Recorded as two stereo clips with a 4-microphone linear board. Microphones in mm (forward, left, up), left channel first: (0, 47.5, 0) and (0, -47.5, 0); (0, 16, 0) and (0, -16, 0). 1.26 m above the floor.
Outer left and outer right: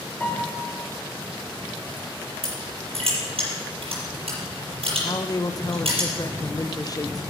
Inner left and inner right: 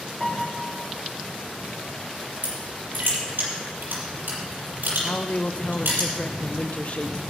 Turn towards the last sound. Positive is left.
turn(degrees=40)  # may be behind; listen again after turning